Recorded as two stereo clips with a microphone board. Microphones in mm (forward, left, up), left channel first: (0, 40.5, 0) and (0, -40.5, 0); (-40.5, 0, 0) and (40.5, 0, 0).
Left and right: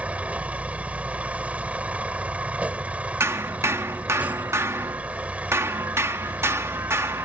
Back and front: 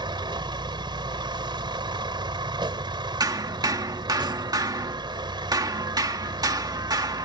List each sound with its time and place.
0.0 s a vehicle: 15° right
3.2 s hammering: 35° right